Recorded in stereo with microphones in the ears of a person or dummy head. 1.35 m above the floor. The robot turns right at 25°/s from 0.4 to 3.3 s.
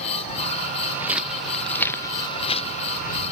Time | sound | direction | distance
0.8 | footsteps | 20° right (ahead or behind) | ?